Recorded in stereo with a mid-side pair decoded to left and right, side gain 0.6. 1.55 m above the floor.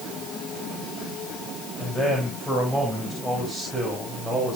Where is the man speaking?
10° left, 7.5 m; by 4.6 s straight ahead, 7 m.